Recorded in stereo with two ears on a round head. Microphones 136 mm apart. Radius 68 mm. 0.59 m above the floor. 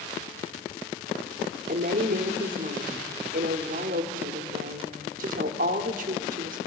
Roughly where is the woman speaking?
Right.